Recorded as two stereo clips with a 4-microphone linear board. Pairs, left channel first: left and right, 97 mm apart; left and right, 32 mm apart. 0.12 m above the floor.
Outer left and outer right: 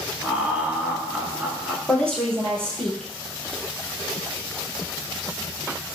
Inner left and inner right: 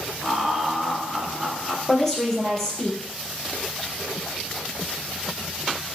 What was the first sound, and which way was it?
Laughter, 15° right (ahead or behind).